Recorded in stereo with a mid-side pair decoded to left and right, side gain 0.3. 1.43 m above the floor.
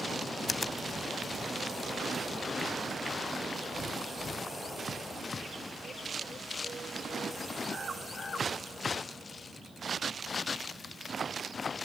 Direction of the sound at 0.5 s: 35° left.